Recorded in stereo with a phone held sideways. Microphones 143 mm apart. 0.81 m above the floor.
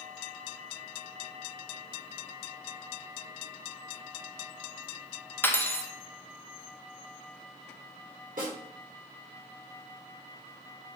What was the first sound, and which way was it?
Cutlery clinking, 15° left (ahead or behind).